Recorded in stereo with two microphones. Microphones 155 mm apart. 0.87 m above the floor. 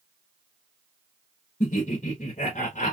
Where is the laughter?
50° left (ahead or behind), 1.2 m.